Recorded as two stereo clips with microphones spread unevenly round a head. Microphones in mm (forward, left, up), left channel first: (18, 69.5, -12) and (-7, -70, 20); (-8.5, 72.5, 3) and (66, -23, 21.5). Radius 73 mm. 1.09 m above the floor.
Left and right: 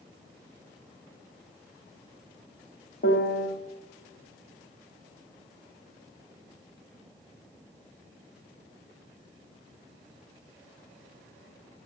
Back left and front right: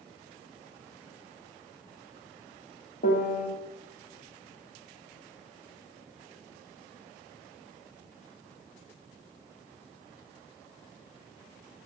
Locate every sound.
3.0 s a piano: 115° left, 1.8 m